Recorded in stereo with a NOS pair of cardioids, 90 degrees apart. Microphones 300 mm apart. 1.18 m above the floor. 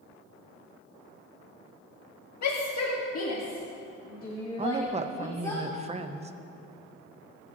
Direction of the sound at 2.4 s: 65° left.